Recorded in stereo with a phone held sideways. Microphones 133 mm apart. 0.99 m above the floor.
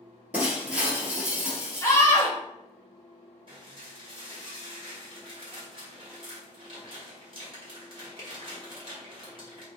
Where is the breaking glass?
10° right (ahead or behind), 1.1 m.